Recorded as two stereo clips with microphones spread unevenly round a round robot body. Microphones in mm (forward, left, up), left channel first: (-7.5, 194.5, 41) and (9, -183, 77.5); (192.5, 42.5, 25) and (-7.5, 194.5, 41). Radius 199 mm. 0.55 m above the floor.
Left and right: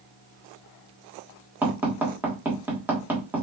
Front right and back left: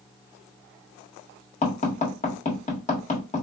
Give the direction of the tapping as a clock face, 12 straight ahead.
12 o'clock.